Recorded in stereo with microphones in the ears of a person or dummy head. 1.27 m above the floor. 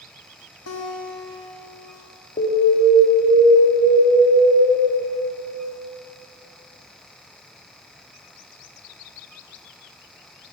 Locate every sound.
0.7 s a guitar: 85° left, 2.0 m
2.4 s an alarm: 40° left (ahead or behind), 1.9 m